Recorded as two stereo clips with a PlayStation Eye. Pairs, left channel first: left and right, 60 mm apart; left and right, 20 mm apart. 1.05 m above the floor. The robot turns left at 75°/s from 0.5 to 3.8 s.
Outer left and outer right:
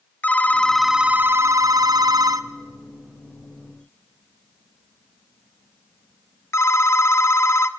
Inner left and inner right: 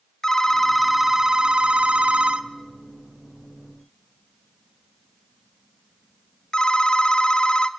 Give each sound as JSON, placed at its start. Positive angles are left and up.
{"t": 0.2, "sound": "a phone ringing", "side_deg": 20, "distance_m": 0.9}